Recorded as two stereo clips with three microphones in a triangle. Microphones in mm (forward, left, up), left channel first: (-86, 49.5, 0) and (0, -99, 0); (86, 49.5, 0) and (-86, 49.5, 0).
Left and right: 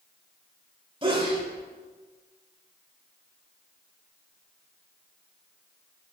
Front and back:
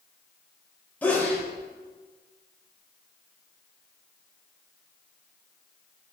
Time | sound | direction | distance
1.0 | a sneeze | 70° right | 1.2 m